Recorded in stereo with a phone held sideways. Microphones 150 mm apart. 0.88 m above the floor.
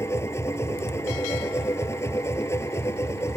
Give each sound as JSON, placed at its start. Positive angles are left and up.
{"t": 0.0, "sound": "a machine running", "side_deg": 20}